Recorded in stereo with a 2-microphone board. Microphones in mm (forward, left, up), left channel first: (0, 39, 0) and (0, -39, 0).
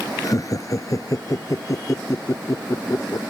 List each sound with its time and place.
0.2 s laughter: 45° left (ahead or behind); by 3.2 s 40° left (ahead or behind)